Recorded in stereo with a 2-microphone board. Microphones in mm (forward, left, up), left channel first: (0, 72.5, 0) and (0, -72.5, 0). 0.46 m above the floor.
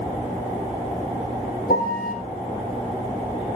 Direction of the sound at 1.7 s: 80° left.